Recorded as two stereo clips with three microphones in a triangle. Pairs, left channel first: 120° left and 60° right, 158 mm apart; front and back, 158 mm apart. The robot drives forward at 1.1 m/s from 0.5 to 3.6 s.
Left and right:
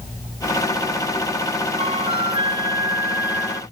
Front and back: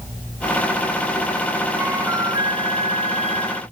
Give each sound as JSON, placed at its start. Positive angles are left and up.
{"t": 1.8, "sound": "a flute", "azimuth_deg": -105}